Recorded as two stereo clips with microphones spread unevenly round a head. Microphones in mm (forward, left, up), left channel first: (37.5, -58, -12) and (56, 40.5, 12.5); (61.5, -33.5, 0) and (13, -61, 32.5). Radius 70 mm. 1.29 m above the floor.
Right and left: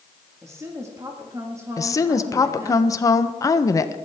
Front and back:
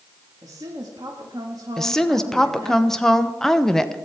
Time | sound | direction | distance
0.4 | a woman speaking | 150° left | 1.8 m
1.8 | a woman speaking | 45° right | 1.0 m